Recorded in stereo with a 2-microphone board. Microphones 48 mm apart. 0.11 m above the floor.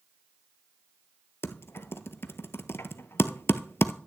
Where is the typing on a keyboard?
60° left (ahead or behind), 0.6 m.